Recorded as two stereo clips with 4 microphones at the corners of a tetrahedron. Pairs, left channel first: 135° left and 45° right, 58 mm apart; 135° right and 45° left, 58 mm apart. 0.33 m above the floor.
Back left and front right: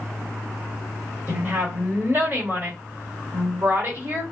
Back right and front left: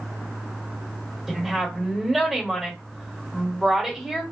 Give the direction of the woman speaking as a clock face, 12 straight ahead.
1 o'clock.